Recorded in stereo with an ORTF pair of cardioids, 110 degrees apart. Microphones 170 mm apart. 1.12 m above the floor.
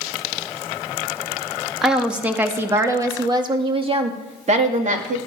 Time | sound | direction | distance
1.8 | a woman speaking | straight ahead | 2 m